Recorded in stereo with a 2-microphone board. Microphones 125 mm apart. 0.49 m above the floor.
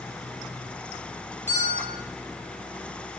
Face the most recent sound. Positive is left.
turn(degrees=-60)  # may be behind; listen again after turning